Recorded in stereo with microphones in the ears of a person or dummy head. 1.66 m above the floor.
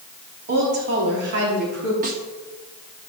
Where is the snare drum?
45° right (ahead or behind), 1.6 m.